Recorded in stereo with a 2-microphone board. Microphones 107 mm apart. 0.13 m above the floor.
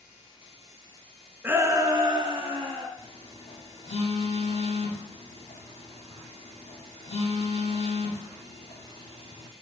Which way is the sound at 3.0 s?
70° left (ahead or behind).